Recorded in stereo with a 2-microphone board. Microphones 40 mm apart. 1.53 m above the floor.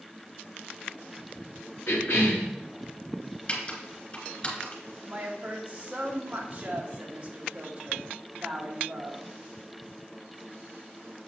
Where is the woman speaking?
30° right (ahead or behind), 2 m.